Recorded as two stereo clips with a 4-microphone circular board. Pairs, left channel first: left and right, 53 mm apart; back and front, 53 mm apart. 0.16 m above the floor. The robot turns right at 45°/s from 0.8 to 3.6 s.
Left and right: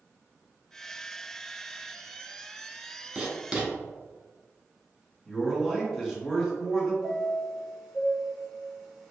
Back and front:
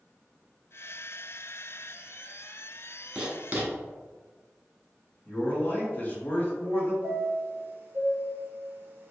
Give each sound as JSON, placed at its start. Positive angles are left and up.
{"t": 3.1, "sound": "writing", "azimuth_deg": -50, "distance_m": 0.9}
{"t": 5.2, "sound": "a man speaking", "azimuth_deg": 180, "distance_m": 1.3}
{"t": 7.0, "sound": "a chime", "azimuth_deg": -5, "distance_m": 1.0}